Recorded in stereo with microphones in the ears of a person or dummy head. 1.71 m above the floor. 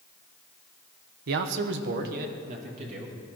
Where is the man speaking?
65° right (ahead or behind), 1.1 m; by 3.1 s 35° right (ahead or behind), 2.5 m.